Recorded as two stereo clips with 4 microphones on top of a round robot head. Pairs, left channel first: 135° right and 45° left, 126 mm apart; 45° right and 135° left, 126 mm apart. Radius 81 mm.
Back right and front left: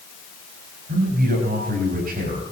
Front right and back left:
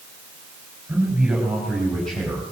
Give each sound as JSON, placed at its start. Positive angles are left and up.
{"t": 0.9, "sound": "a man speaking", "azimuth_deg": 55, "distance_m": 4.0}